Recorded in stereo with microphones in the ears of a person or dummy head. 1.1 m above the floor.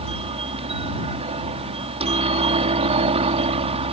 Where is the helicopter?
25° right (ahead or behind).